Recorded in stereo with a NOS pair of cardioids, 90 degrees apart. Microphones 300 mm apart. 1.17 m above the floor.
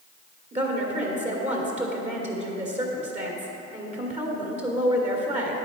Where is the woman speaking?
25° right, 2.5 m.